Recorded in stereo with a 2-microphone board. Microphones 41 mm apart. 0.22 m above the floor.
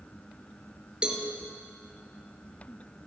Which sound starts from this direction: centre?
A cowbell, at 1.0 s.